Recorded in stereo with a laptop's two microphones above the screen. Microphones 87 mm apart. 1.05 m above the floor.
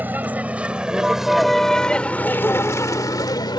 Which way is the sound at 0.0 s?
20° right (ahead or behind).